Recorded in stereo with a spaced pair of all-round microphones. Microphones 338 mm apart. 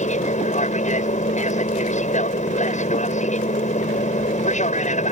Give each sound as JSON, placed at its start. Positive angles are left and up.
{"t": 0.0, "sound": "an aircraft", "side_deg": 20}